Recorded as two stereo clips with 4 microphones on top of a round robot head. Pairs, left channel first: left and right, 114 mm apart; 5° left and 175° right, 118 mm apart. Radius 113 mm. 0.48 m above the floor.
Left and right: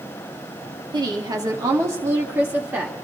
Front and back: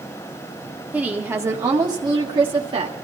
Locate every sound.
0.9 s a woman speaking: 105° right, 1.3 m; by 3.0 s 165° right, 1.7 m